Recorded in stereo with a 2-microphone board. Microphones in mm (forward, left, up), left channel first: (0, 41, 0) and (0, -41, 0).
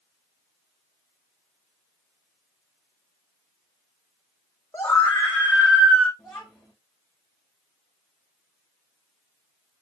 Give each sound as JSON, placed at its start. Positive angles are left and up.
{"t": 4.7, "sound": "a scream", "side_deg": 25, "distance_m": 6.5}
{"t": 6.2, "sound": "a child speaking", "side_deg": 10, "distance_m": 6.0}